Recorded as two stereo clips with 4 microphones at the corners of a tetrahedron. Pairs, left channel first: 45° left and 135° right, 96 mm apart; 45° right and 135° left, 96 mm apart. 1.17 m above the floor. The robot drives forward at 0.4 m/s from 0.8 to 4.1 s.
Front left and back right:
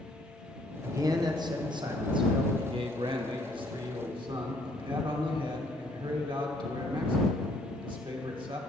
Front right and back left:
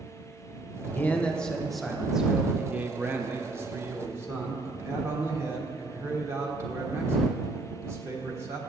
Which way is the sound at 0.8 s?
100° right.